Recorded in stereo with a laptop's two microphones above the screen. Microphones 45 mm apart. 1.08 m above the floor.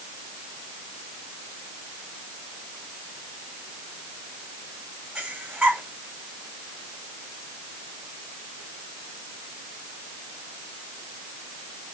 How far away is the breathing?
About 3 m.